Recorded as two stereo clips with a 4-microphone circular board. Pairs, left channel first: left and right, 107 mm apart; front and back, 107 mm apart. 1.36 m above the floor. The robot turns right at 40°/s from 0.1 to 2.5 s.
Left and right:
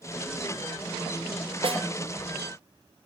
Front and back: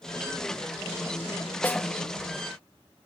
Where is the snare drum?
70° right, 1.1 m; by 1.8 s 65° right, 1.1 m.